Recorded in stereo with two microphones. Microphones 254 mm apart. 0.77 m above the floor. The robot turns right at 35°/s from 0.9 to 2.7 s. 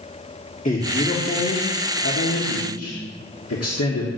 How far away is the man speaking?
About 1.4 m.